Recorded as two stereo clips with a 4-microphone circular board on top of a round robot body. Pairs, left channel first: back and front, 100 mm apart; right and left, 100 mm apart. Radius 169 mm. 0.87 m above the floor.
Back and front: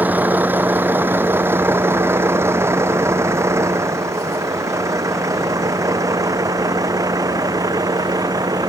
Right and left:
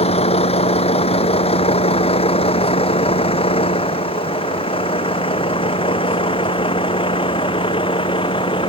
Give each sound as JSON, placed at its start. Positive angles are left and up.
{"t": 0.0, "sound": "a vehicle", "azimuth_deg": -75}